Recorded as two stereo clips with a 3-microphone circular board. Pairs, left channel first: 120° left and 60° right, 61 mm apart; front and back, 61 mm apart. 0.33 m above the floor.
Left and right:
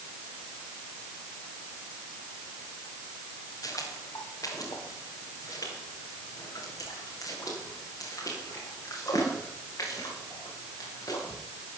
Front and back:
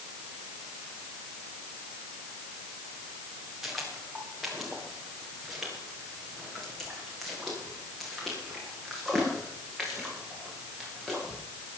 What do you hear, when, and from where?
3.6 s footsteps: 95° left, 6 m; by 11.4 s 90° left, 12.5 m